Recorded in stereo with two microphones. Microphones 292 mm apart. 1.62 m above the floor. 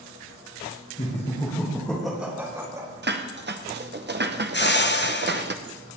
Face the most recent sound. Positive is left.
turn(degrees=40)  # may be behind; listen again after turning